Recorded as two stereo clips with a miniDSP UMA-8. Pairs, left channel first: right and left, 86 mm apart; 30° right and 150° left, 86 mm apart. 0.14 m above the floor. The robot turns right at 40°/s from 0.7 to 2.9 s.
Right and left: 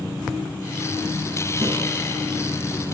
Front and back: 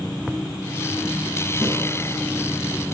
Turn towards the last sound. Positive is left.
turn(degrees=105)